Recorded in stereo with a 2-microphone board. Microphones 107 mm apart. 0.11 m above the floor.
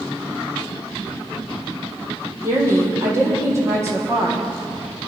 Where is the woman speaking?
25° right (ahead or behind), 4 m.